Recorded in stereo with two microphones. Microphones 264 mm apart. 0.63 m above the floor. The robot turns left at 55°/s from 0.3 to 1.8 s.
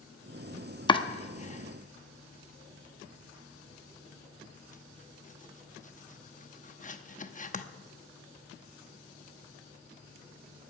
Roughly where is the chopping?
Centre.